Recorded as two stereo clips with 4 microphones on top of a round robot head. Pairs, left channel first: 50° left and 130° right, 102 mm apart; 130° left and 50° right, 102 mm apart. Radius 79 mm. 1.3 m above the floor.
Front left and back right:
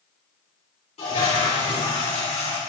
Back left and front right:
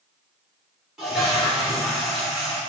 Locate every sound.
1.0 s a toilet flushing: 40° left, 3.5 m